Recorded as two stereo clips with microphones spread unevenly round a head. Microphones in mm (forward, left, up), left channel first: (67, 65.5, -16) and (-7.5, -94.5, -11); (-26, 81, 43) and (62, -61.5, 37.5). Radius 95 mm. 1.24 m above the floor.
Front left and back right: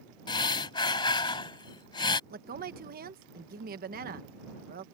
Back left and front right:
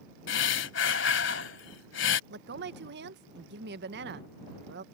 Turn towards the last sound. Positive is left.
turn(degrees=-75)